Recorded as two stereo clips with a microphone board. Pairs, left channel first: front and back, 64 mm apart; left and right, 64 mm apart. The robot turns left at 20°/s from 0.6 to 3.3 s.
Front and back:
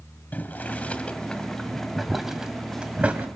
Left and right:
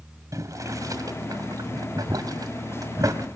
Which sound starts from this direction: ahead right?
Boiling, at 0.3 s.